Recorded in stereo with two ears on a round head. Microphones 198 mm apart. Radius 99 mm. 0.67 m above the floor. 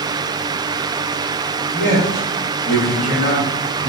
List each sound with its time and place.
1.7 s a man speaking: 35° left (ahead or behind), 1.5 m; by 3.9 s 60° left (ahead or behind), 3 m